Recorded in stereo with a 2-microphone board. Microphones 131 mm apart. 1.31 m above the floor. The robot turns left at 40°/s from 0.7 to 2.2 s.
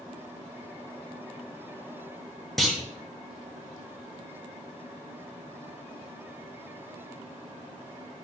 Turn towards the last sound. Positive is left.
turn(degrees=0)  # may be behind; listen again after turning